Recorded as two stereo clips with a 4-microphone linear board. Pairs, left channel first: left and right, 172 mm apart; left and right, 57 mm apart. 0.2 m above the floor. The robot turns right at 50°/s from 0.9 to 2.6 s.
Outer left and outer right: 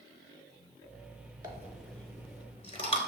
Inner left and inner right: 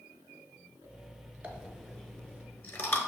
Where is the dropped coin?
20° right (ahead or behind), 0.7 m; by 3.0 s 35° left (ahead or behind), 0.7 m.